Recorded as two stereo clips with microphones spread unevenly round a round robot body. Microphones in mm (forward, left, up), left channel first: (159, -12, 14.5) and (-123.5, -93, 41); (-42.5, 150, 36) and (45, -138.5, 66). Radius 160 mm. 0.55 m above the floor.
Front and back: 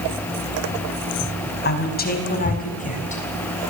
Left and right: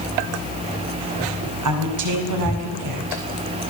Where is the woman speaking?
40° right, 5 m; by 3.2 s 50° right, 5.5 m.